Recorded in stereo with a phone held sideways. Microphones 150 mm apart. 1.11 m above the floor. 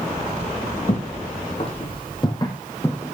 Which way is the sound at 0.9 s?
50° left (ahead or behind).